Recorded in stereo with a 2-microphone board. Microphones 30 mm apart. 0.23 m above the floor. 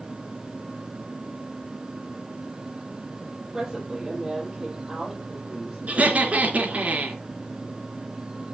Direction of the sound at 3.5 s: 10° right (ahead or behind).